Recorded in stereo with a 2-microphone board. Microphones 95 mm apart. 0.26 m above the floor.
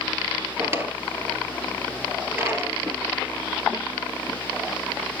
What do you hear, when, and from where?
0.6 s a drawer: 25° right (ahead or behind), 1.1 m